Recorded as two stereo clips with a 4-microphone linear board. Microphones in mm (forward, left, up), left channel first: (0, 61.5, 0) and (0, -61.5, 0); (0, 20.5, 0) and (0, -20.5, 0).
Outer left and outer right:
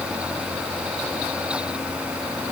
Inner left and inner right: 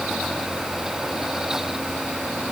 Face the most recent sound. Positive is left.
No sound to turn to.